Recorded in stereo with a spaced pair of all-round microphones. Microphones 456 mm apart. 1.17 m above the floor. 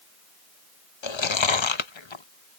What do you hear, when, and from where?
1.0 s chewing: 75° left (ahead or behind)